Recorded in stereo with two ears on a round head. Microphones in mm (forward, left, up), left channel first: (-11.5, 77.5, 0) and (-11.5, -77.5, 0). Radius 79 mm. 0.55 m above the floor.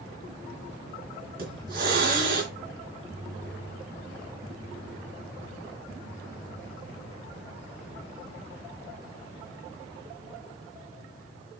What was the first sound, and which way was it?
A hiss, 60° right (ahead or behind).